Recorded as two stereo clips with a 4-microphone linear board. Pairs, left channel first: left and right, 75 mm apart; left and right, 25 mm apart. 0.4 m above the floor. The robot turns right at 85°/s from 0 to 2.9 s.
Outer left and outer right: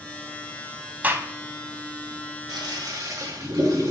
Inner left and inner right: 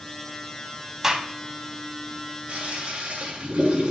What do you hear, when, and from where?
1.0 s a gunshot: 20° right (ahead or behind), 0.6 m; by 1.3 s 40° right (ahead or behind), 0.6 m
2.5 s a toilet flushing: 100° right, 1.7 m; by 3.9 s 65° right, 1.7 m